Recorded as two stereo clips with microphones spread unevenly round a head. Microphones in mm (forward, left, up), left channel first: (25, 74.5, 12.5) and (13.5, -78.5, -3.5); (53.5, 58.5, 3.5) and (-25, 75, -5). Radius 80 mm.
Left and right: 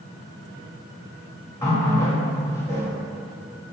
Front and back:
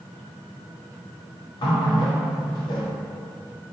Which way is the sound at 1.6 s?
15° left.